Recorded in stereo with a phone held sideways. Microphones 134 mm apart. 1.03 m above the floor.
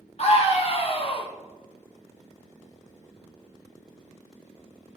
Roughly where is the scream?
Left.